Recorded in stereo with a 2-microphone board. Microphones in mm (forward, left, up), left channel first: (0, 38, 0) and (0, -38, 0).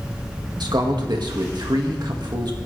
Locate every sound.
0.6 s a man speaking: 70° right (ahead or behind), 1.9 m